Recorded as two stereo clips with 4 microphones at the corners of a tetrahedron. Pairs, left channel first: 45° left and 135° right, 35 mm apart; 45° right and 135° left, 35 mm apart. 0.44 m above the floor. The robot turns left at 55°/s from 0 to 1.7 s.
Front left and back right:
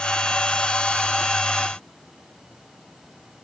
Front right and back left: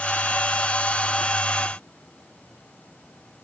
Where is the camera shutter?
I don't hear a camera shutter.